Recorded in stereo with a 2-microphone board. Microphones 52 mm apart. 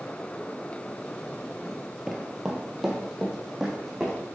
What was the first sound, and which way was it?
Running footsteps, 5° right (ahead or behind).